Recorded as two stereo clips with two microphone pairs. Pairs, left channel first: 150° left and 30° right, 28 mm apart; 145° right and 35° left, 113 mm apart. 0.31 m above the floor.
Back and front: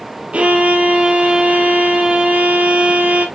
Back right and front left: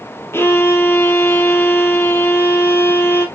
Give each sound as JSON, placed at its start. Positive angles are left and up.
{"t": 0.3, "sound": "a violin", "azimuth_deg": -75, "distance_m": 2.5}